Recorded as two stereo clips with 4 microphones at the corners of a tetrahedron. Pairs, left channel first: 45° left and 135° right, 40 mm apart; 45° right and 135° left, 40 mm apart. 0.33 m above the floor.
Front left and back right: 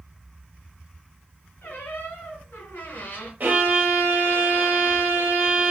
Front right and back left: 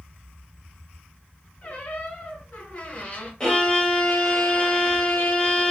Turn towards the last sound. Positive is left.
turn(degrees=-110)